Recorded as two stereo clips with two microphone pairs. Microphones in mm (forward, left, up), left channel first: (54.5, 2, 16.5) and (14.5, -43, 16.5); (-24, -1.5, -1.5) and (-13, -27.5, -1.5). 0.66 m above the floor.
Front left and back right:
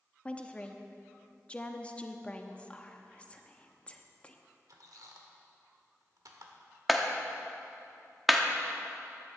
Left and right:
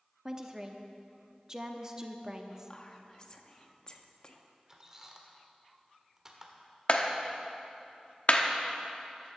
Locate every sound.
0.2 s a woman speaking: 10° right, 0.9 m
2.7 s whispering: 95° left, 0.9 m
4.7 s a squeak: 135° right, 1.3 m
6.9 s a clap: 140° left, 0.9 m